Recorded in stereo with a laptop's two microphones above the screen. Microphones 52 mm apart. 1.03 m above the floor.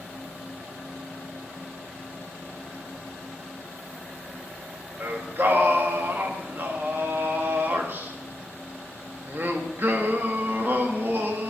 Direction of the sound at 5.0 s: 45° right (ahead or behind).